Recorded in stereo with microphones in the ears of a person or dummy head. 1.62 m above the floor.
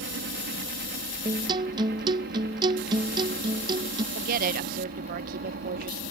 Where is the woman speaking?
45° right (ahead or behind).